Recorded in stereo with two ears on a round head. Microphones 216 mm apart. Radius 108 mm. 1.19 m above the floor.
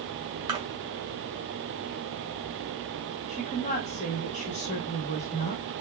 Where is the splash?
20° right (ahead or behind), 1.1 m.